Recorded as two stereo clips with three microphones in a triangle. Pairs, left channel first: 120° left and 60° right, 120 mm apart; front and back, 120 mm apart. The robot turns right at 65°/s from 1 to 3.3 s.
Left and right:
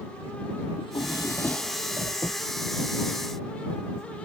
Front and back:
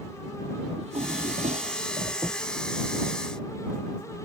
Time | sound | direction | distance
0.8 | a drawer | 165° left | ?